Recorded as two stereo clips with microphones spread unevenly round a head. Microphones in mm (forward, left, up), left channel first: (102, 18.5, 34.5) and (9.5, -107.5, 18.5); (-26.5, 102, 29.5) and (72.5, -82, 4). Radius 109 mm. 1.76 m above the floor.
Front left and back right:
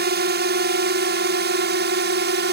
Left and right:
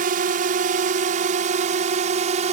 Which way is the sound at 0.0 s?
115° right.